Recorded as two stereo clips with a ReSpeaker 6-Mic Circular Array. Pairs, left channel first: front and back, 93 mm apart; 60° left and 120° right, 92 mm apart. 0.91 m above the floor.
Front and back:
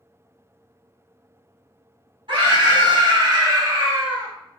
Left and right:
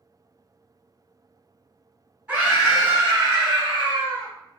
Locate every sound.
2.3 s a scream: straight behind, 1.3 m; by 4.3 s 105° right, 1.0 m